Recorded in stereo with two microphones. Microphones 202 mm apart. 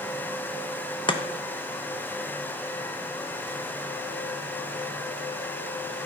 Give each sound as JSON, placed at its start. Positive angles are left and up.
{"t": 1.1, "sound": "chopping", "side_deg": 25, "distance_m": 0.7}